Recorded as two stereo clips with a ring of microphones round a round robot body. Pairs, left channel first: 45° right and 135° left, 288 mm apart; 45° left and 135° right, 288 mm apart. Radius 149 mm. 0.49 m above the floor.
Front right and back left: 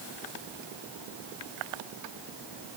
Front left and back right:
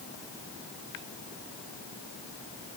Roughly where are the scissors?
I don't hear scissors.